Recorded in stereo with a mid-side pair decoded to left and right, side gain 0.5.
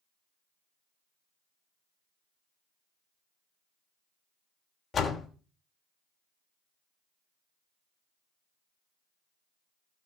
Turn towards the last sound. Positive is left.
turn(degrees=40)